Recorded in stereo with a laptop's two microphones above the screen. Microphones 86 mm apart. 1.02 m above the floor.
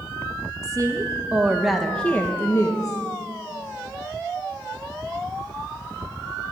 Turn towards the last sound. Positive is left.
turn(degrees=45)  # may be behind; listen again after turning